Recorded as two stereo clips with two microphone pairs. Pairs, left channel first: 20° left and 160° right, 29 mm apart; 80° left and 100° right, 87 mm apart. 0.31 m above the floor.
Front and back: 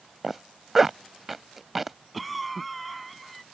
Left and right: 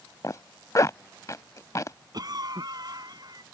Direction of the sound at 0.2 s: 115° left.